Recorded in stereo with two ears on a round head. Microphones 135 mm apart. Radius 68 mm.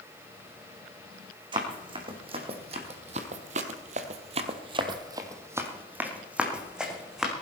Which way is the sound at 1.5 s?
35° right (ahead or behind).